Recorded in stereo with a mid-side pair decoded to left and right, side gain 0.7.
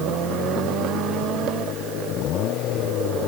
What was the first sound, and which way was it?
Only background noise.